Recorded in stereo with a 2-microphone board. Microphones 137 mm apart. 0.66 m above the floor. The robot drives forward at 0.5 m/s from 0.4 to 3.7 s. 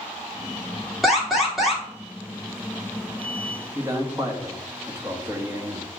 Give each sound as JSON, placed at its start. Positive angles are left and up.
{"t": 1.0, "sound": "an alarm", "side_deg": 0, "distance_m": 2.5}
{"t": 3.8, "sound": "a man speaking", "side_deg": -20, "distance_m": 1.1}